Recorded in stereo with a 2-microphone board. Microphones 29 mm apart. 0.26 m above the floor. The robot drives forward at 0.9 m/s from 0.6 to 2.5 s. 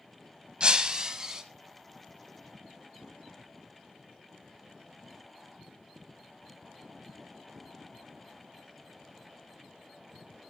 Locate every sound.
0.6 s breaking glass: 35° right (ahead or behind), 0.9 m; by 1.4 s 25° right (ahead or behind), 1.4 m